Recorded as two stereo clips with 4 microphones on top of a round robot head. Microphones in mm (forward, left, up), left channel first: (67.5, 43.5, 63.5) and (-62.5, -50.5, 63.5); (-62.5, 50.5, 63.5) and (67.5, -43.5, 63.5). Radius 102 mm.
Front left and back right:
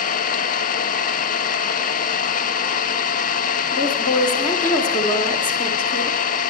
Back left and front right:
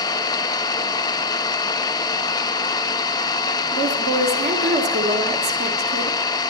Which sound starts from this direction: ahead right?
A woman speaking, at 3.7 s.